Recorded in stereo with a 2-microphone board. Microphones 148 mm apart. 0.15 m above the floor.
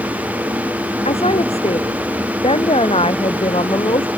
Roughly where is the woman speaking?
Left.